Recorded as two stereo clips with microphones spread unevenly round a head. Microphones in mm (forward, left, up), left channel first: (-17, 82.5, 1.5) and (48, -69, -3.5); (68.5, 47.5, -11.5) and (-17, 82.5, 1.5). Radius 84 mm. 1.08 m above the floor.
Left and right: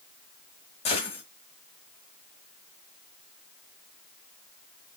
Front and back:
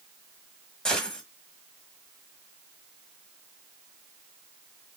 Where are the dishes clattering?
I don't hear dishes clattering.